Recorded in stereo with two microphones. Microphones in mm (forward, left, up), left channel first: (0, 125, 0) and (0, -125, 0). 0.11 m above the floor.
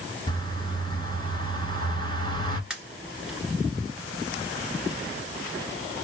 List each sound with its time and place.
0.3 s a bird: 20° left (ahead or behind), 1.1 m
2.7 s a pop: 5° right (ahead or behind), 1.5 m